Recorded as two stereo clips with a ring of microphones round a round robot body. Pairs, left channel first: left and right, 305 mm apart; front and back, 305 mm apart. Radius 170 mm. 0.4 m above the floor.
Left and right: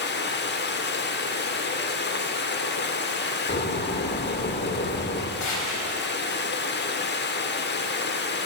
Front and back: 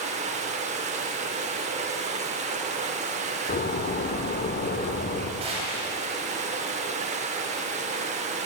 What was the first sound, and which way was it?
Running water, 125° left.